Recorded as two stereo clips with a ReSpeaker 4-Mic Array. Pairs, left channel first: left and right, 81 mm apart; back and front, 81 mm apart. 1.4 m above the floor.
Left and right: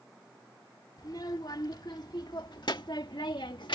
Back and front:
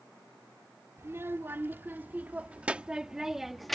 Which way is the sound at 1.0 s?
60° left.